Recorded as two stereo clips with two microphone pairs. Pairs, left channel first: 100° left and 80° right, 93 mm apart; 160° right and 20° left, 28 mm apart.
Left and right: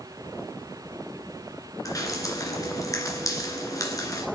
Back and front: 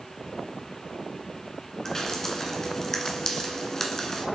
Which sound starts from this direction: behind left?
Dripping, at 1.9 s.